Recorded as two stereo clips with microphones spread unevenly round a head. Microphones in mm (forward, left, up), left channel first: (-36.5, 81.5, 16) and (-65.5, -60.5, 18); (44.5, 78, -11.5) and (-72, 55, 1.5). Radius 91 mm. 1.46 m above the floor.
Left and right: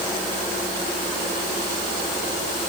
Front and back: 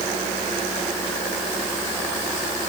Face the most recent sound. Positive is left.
No sound to turn to.